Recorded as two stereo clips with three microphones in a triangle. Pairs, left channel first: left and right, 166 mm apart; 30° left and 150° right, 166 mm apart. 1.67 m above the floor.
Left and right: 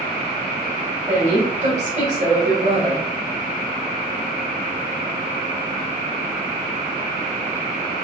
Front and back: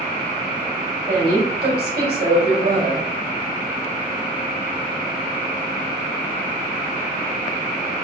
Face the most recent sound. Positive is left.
turn(degrees=-135)